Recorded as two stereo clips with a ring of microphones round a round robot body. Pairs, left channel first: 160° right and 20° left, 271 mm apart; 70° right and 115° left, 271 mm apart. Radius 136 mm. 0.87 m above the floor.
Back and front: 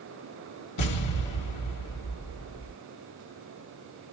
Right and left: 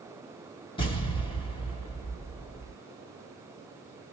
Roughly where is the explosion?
Behind right.